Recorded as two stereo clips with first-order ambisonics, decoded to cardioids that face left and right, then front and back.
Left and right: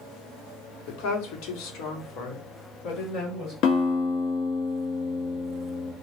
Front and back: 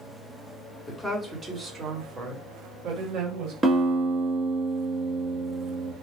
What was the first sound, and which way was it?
A woman speaking, 90° left.